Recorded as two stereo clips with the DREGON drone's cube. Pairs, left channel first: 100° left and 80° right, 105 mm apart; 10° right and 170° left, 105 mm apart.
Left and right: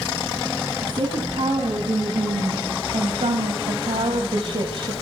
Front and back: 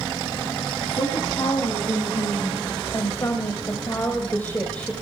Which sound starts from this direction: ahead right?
A woman speaking, at 0.8 s.